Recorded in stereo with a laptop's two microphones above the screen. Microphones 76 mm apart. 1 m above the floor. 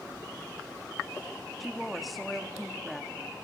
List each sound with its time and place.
1.6 s a woman speaking: centre (ahead or behind), 1.5 m